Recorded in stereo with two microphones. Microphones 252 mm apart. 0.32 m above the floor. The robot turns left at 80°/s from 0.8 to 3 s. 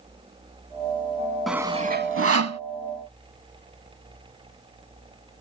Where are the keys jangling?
No keys jangling in this recording.